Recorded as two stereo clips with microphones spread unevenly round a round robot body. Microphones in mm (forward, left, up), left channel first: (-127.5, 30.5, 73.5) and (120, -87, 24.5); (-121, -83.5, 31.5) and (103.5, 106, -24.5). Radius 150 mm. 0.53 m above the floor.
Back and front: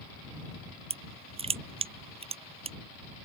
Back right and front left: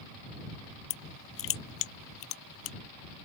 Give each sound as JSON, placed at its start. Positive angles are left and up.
{"t": 0.9, "sound": "crushing", "azimuth_deg": -95}